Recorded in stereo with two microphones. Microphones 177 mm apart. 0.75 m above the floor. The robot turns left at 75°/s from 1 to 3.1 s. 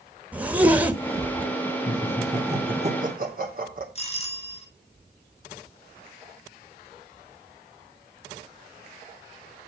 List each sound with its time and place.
0.3 s a zipper: 10° right (ahead or behind), 1.0 m; by 1.5 s 30° right (ahead or behind), 1.0 m
1.9 s laughter: 30° left (ahead or behind), 2.5 m; by 3.9 s 55° right (ahead or behind), 2.5 m
4.0 s a doorbell: 35° left (ahead or behind), 1.7 m